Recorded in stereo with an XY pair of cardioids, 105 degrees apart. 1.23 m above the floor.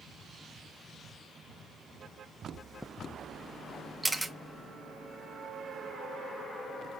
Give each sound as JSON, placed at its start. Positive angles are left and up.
{"t": 2.5, "sound": "chewing", "azimuth_deg": 10, "distance_m": 0.6}
{"t": 4.0, "sound": "a camera shutter", "azimuth_deg": 0, "distance_m": 0.8}